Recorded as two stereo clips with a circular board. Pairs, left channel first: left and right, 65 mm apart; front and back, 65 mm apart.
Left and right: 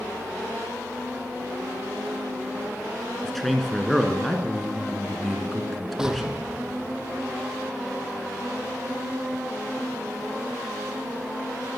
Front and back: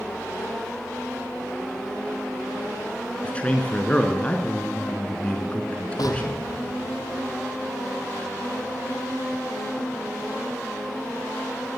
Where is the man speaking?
5° left, 1.2 m.